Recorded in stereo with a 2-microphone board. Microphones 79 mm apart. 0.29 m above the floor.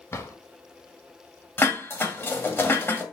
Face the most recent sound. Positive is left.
turn(degrees=30)  # may be behind; listen again after turning